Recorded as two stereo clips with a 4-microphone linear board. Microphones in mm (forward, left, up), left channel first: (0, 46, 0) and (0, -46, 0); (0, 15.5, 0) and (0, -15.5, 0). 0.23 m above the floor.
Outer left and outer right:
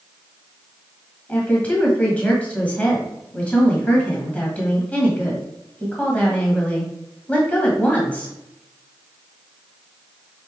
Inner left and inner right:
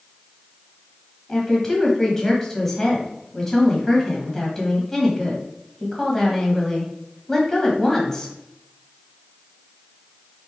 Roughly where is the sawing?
No sawing in this recording.